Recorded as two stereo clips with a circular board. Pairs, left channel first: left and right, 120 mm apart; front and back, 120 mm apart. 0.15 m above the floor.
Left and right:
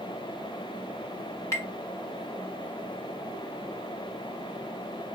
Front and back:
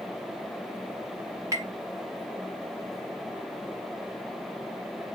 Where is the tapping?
135° left, 1.6 m.